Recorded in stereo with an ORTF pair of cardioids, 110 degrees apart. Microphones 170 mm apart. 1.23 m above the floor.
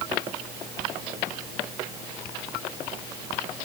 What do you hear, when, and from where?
Only background noise.